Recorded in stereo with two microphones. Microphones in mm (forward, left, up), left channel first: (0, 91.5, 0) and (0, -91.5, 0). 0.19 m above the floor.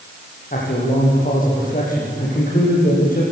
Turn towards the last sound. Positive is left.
turn(degrees=50)  # may be behind; listen again after turning